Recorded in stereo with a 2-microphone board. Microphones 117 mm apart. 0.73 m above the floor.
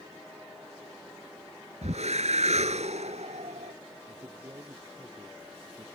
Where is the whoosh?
75° right (ahead or behind).